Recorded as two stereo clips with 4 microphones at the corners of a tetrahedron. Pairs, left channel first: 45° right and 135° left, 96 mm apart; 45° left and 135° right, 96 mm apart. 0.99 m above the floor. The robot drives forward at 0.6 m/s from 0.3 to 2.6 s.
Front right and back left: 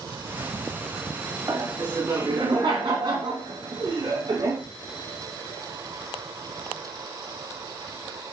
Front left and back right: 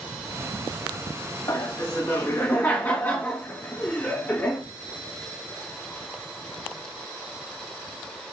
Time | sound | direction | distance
1.5 | laughter | 90° left | 1.9 m